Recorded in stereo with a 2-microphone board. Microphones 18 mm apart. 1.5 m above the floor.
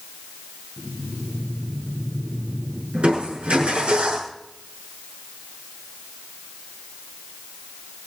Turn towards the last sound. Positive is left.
turn(degrees=-80)